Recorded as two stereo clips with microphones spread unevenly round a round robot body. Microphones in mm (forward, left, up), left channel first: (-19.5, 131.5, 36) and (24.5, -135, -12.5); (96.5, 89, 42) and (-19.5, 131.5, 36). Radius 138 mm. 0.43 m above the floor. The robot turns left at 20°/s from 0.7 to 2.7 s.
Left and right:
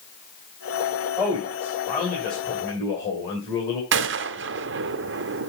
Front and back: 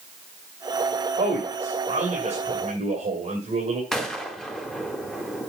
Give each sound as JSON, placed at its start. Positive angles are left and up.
{"t": 1.2, "sound": "a man speaking", "azimuth_deg": 180, "distance_m": 2.5}
{"t": 3.9, "sound": "a gunshot", "azimuth_deg": -110, "distance_m": 0.6}